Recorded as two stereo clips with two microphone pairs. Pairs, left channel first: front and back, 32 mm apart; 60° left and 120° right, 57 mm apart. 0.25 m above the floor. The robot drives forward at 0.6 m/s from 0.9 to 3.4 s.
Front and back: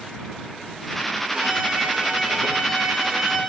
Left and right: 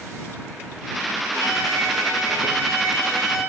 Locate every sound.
1.3 s a violin: 120° right, 4.5 m; by 3.4 s 130° right, 5.5 m